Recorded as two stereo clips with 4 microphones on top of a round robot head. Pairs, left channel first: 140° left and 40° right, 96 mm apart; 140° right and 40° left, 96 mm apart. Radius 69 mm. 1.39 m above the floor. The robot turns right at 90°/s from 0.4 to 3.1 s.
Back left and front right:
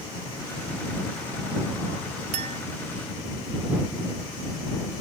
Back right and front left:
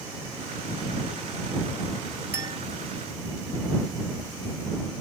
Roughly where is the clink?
Ahead right.